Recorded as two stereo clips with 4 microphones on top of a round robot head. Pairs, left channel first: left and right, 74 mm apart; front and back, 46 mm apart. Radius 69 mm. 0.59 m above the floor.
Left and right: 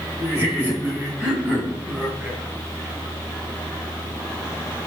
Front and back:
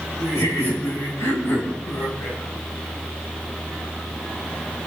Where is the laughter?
25° right, 7.5 m; by 2.4 s 5° right, 5 m.